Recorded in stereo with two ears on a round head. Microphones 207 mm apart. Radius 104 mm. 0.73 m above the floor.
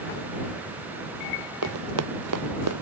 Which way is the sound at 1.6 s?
70° right (ahead or behind).